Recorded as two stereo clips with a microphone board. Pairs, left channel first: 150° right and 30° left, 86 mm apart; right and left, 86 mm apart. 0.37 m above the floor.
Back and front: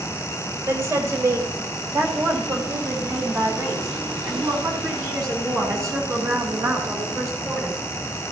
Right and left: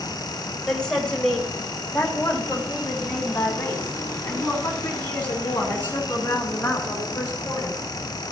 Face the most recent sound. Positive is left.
turn(degrees=-25)